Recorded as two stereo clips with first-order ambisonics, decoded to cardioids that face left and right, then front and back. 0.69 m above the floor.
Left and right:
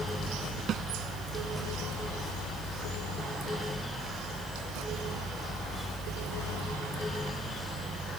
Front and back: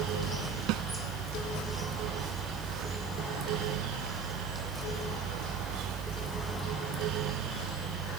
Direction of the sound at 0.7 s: 150° right.